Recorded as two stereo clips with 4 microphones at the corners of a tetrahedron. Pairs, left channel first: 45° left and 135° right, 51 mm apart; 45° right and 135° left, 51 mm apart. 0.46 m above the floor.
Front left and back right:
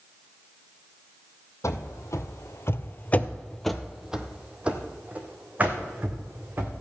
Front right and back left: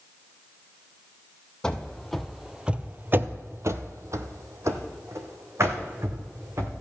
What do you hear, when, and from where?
1.6 s running footsteps: 30° left, 1.1 m; by 6.7 s 170° left, 2.5 m